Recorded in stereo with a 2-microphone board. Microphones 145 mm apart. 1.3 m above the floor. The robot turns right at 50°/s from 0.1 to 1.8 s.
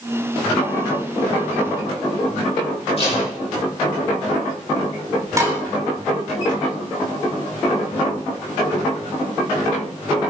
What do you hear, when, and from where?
3.0 s tape being pulled: 40° left (ahead or behind), 8 m
5.4 s dishes clattering: 20° right (ahead or behind), 3 m